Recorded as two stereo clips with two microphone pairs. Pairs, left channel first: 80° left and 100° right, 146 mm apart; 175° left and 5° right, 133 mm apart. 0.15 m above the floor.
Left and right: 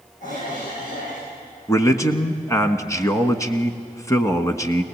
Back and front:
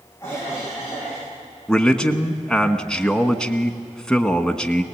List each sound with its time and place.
0.2 s a cough: 105° left, 8 m
1.7 s a man speaking: 90° left, 1.1 m